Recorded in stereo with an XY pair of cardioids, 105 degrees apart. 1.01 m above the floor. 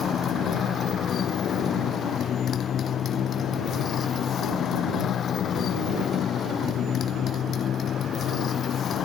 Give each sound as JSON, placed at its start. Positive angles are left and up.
{"t": 0.0, "sound": "a motorcycle", "azimuth_deg": 55}